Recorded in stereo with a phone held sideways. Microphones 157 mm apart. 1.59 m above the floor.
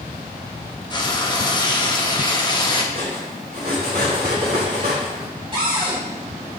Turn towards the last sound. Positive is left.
turn(degrees=-35)  # may be behind; listen again after turning